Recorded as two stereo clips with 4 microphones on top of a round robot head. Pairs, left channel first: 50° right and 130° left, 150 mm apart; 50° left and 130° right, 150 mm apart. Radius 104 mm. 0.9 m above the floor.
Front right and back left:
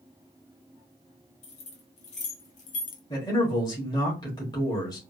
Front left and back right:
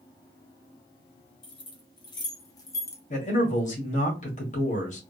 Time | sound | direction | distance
1.4 | keys jangling | 5° right | 1.8 m
3.1 | a man speaking | 15° left | 1.7 m